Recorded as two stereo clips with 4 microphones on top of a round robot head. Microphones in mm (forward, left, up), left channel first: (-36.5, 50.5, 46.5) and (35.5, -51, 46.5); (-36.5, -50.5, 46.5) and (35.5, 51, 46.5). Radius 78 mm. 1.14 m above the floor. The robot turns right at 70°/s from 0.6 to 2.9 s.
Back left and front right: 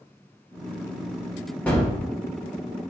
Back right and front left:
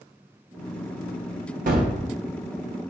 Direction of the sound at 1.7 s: 50° left.